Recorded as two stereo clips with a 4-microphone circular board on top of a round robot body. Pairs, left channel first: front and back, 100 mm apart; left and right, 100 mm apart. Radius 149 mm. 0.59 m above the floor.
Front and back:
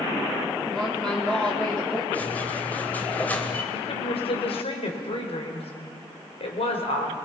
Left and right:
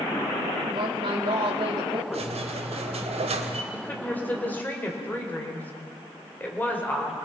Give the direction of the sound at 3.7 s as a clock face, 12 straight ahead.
11 o'clock.